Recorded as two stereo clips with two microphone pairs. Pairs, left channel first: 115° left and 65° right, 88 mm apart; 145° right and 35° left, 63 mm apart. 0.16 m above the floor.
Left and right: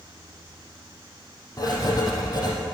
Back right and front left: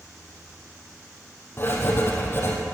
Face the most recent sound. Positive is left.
turn(degrees=160)